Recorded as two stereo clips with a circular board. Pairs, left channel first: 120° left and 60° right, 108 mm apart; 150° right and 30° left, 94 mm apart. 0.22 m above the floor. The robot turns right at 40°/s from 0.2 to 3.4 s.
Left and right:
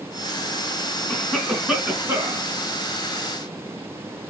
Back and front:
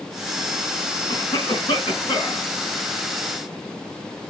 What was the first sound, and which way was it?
A cough, 165° right.